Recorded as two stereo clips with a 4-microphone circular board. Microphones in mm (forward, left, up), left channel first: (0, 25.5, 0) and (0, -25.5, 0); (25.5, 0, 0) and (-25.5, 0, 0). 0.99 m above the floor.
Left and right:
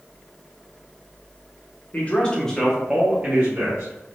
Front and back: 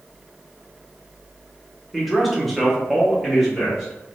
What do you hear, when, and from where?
1.9 s a man speaking: 90° left, 0.8 m; by 4.2 s 90° right, 1.0 m